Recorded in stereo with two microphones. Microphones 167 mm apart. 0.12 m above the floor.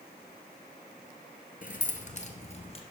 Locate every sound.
1.6 s keys jangling: 55° left (ahead or behind), 1.2 m; by 2.8 s 35° left (ahead or behind), 1.4 m